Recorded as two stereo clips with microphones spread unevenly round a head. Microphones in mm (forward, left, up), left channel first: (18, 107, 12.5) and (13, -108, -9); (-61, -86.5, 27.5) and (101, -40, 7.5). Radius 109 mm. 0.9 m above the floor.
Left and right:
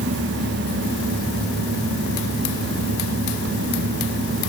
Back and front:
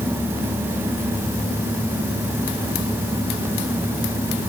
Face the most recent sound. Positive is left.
No sound to turn to.